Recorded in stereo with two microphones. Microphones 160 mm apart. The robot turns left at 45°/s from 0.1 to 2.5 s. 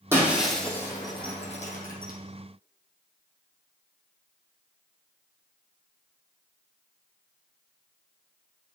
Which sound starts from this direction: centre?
Breaking glass, at 0.1 s.